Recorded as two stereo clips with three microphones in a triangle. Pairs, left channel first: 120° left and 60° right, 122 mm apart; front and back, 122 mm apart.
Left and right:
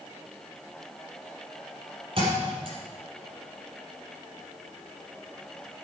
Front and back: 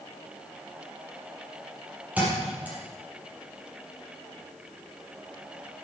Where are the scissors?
I don't hear scissors.